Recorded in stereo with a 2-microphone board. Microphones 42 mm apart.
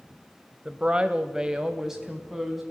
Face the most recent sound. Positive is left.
turn(degrees=-5)  # may be behind; listen again after turning